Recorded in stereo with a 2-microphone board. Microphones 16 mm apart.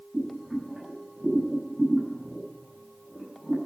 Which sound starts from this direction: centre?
Boiling, at 0.1 s.